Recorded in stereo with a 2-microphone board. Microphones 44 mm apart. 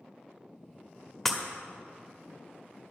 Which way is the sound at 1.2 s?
5° left (ahead or behind).